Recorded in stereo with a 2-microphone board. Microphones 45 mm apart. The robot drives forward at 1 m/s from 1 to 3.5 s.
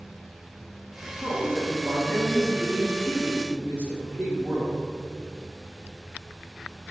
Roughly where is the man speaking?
Right.